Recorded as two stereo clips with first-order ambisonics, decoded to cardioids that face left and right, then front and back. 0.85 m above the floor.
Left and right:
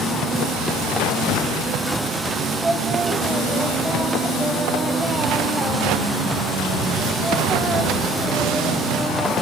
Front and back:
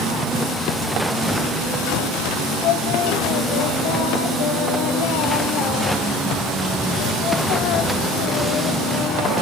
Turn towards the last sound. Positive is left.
turn(degrees=-10)